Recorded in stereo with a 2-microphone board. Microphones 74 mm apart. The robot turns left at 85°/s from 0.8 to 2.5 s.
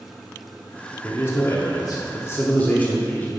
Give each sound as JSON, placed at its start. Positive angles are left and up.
{"t": 1.0, "sound": "a man speaking", "azimuth_deg": 150, "distance_m": 0.8}